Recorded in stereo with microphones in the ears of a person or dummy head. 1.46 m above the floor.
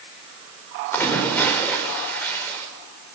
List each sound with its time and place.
0.9 s a splash: 15° left (ahead or behind), 5 m